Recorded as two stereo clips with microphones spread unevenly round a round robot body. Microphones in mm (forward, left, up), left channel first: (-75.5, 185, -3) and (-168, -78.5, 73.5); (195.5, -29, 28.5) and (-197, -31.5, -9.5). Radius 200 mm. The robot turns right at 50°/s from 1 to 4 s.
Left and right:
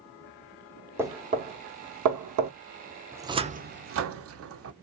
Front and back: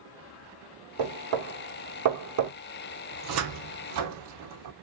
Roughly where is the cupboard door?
Behind left.